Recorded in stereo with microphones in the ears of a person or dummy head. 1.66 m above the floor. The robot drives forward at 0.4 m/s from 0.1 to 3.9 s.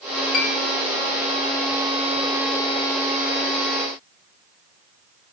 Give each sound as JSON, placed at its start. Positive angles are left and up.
{"t": 0.3, "sound": "a piano", "side_deg": 55, "distance_m": 0.7}